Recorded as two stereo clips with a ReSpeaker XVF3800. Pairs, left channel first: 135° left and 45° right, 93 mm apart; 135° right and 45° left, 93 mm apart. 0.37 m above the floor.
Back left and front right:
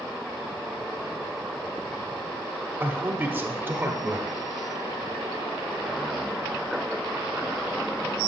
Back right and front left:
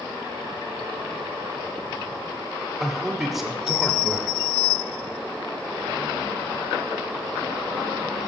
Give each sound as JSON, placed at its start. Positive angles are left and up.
{"t": 2.8, "sound": "a man speaking", "azimuth_deg": -40, "distance_m": 0.8}